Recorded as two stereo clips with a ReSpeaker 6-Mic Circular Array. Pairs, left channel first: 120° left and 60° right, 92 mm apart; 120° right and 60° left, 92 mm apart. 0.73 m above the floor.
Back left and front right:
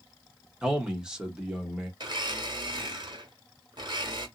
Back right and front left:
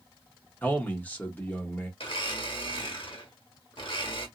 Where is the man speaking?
125° right, 1.0 m.